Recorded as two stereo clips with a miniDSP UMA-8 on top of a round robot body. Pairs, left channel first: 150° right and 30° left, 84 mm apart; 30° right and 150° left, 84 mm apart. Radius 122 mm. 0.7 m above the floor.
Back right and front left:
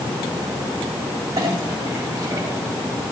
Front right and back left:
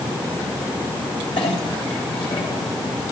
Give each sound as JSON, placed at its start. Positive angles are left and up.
{"t": 1.4, "sound": "a clink", "azimuth_deg": -20, "distance_m": 2.5}